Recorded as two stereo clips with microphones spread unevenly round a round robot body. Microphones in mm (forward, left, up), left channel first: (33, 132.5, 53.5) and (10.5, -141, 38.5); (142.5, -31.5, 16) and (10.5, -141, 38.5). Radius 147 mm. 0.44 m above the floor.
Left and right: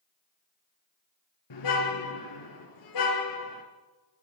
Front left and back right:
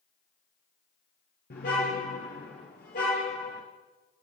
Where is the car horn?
95° left, 4 m.